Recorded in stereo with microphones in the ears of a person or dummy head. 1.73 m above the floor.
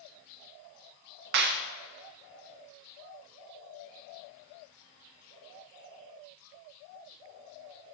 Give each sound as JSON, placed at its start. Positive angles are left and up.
{"t": 1.3, "sound": "a clap", "side_deg": -50, "distance_m": 0.6}